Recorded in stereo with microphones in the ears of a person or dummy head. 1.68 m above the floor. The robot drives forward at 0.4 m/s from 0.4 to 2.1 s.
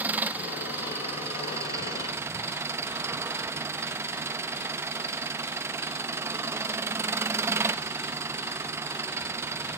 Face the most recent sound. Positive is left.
turn(degrees=-20)  # may be behind; listen again after turning